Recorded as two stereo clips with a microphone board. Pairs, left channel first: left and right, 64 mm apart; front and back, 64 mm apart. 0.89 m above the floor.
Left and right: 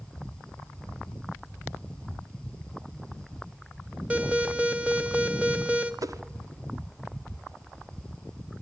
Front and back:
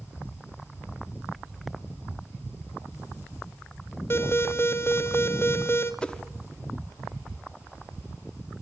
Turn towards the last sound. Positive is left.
turn(degrees=-75)